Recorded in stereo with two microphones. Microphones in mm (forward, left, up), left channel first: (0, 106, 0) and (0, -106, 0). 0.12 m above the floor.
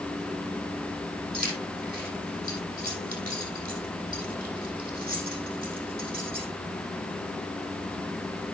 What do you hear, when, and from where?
1.3 s keys jangling: 45° right (ahead or behind), 4 m